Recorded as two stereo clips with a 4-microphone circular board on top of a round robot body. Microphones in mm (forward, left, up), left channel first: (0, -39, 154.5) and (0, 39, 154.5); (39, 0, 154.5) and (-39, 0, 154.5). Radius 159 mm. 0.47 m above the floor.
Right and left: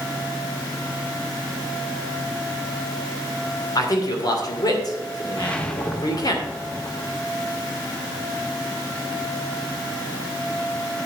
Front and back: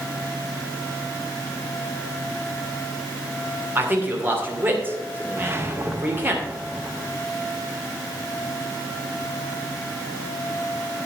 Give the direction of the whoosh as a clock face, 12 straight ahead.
5 o'clock.